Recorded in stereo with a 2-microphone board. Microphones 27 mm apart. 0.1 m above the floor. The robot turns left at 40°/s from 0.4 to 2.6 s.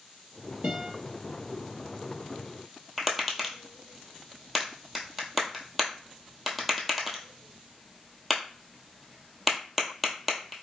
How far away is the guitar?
About 1.8 m.